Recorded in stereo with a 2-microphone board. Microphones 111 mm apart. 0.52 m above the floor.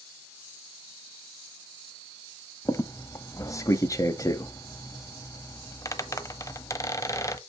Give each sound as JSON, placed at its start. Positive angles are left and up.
{"t": 2.6, "sound": "a squeak", "side_deg": 30, "distance_m": 0.9}